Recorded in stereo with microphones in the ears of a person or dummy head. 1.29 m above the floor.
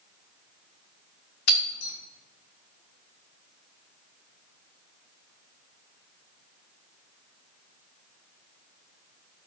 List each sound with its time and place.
1.5 s breaking glass: 65° left (ahead or behind), 3 m